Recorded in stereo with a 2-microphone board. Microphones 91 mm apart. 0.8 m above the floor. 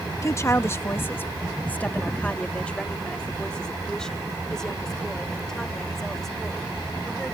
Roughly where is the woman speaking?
Left.